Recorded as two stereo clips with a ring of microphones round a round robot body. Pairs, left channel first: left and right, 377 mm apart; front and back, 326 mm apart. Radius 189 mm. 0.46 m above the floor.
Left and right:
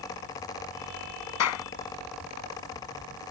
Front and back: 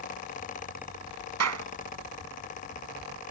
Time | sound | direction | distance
1.4 | a clap | 140° left | ?